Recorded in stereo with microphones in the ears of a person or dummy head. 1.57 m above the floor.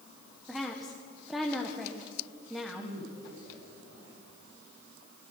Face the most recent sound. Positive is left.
turn(degrees=-80)